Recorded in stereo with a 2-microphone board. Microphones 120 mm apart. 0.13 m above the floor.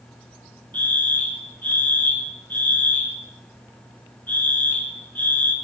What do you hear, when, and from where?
0.7 s a fire alarm: 15° left (ahead or behind), 2.5 m